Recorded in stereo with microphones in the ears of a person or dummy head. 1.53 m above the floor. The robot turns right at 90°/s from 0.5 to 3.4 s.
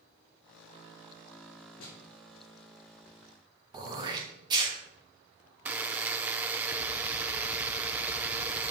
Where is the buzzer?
5° right (ahead or behind), 0.5 m.